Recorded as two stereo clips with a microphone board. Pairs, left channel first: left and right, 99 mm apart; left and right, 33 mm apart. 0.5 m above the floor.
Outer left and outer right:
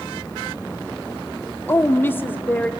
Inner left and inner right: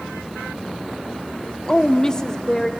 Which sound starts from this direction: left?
A woman speaking, at 1.7 s.